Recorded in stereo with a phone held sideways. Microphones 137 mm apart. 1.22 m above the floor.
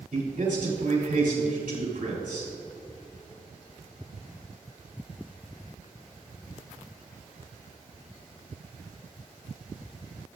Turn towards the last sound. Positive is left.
turn(degrees=-85)